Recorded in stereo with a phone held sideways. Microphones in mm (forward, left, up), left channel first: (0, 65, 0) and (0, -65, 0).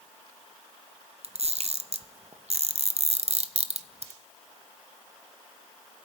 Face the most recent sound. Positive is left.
turn(degrees=-55)  # may be behind; listen again after turning